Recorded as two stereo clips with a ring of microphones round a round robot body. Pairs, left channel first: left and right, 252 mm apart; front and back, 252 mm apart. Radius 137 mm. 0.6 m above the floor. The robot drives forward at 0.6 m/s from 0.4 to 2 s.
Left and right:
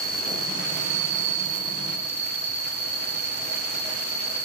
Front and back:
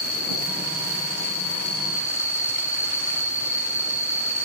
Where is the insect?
35° right, 1.4 m; by 4.5 s 80° right, 0.9 m.